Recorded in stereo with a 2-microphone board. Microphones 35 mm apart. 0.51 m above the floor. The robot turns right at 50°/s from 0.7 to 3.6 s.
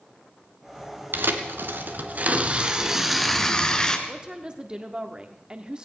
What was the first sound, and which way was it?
Tearing paper, 100° right.